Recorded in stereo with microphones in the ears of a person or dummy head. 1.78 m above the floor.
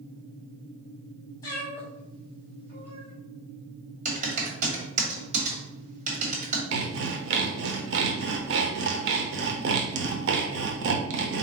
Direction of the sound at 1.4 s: 20° left (ahead or behind).